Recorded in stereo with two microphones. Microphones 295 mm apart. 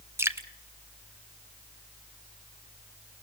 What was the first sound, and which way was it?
Dripping, 10° right (ahead or behind).